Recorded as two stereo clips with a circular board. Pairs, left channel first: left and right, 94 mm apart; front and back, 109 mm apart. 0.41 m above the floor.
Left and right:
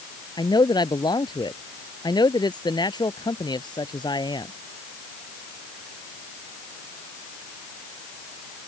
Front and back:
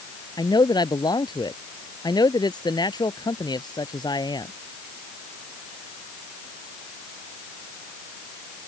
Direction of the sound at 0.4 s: 50° left.